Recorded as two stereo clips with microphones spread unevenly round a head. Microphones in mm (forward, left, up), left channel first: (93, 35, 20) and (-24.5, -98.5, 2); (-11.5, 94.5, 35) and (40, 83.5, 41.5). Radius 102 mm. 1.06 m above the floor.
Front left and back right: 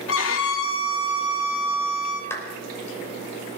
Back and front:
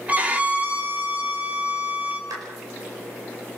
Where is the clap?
30° right, 5 m.